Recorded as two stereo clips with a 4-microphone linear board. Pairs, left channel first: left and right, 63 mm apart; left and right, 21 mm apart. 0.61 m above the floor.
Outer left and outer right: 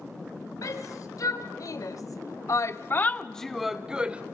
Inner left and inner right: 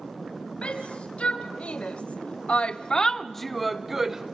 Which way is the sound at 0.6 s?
65° left (ahead or behind).